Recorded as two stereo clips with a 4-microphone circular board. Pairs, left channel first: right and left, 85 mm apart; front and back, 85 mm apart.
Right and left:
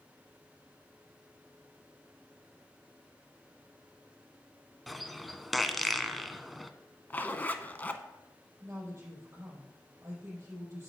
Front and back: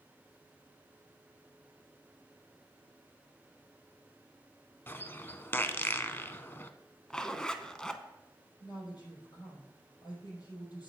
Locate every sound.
4.9 s a bird: straight ahead, 0.5 m
7.1 s a zipper: 70° right, 0.6 m
8.6 s a woman speaking: 30° left, 4.5 m